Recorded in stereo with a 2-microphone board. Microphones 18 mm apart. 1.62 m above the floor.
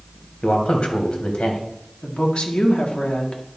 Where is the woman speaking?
75° left (ahead or behind), 1.8 m.